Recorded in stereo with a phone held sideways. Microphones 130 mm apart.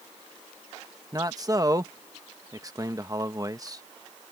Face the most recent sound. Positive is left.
turn(degrees=-30)  # may be behind; listen again after turning